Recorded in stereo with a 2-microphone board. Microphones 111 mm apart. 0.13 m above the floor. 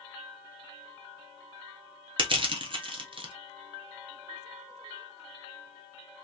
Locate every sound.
2.2 s crushing: 45° right (ahead or behind), 0.9 m